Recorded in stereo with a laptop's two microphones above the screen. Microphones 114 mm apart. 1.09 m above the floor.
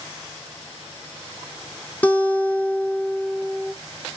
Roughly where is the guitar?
Centre.